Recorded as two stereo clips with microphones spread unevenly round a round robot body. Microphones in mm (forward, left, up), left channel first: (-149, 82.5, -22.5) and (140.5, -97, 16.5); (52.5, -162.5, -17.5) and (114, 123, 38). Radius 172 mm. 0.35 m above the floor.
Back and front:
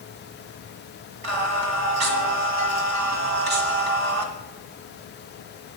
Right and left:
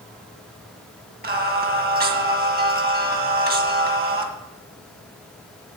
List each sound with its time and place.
1.2 s singing: 15° left, 1.8 m